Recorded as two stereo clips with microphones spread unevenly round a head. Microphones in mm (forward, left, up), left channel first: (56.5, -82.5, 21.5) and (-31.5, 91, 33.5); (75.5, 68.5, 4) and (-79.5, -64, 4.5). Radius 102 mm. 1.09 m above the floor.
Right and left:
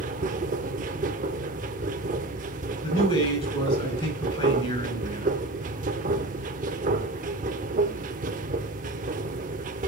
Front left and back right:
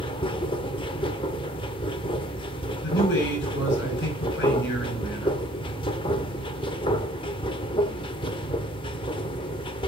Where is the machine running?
95° left, 0.9 m.